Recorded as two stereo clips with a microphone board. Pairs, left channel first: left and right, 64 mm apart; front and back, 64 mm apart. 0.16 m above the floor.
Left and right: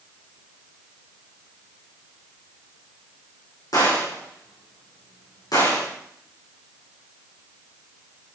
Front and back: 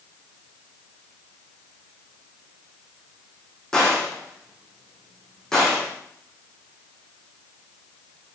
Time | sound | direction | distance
3.7 | a gunshot | 80° left | 5.5 m